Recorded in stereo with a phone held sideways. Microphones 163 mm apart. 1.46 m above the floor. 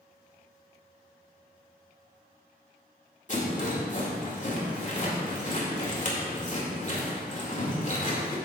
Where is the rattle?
50° left (ahead or behind), 2 m.